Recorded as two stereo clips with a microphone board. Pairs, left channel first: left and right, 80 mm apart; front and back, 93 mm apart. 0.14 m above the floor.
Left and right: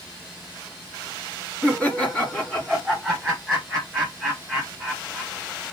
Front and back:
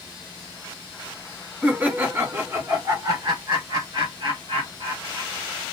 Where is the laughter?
120° left, 1.3 m; by 5.3 s 175° right, 2.5 m.